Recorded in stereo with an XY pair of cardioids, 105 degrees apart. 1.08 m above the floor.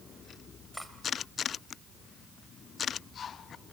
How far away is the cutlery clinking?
About 2.5 m.